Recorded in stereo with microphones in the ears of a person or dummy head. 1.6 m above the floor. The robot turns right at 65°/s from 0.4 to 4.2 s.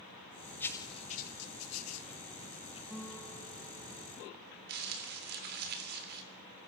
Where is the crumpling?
55° right (ahead or behind), 3.5 m.